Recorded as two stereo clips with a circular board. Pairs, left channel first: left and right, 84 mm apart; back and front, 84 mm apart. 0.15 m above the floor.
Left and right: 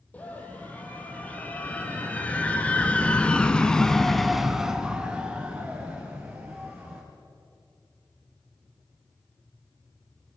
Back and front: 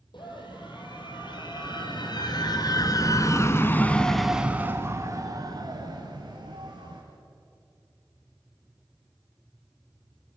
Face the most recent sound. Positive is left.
turn(degrees=-20)